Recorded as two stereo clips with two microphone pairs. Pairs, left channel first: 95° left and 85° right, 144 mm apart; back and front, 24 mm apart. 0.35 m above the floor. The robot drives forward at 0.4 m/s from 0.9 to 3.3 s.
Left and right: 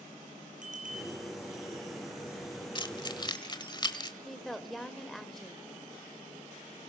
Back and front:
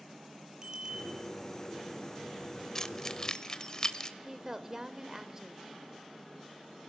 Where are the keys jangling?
125° left, 1.1 m; by 4.1 s 135° left, 1.2 m.